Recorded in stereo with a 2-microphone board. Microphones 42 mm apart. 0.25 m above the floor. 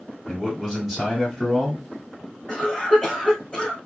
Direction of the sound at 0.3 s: 5° left (ahead or behind).